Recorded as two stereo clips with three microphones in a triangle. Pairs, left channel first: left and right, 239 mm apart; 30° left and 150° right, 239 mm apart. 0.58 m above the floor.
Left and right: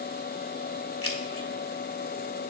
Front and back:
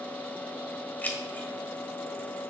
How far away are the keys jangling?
About 1.6 m.